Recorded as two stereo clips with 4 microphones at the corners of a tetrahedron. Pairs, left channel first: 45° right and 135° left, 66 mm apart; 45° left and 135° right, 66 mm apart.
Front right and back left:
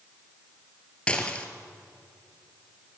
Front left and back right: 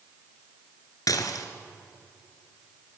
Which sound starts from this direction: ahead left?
Dishes clattering, at 1.1 s.